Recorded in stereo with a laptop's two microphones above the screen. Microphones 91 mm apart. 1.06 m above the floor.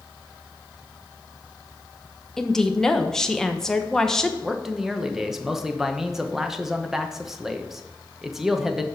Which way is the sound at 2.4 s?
5° left (ahead or behind).